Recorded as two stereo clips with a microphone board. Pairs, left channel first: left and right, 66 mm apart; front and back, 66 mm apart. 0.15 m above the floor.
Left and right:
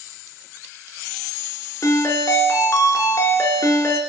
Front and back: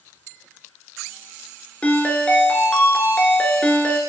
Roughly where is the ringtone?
Ahead left.